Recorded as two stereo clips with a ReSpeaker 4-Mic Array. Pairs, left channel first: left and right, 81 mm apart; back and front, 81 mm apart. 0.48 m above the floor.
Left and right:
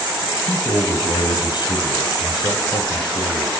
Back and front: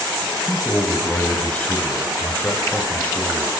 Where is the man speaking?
105° left, 3.5 m.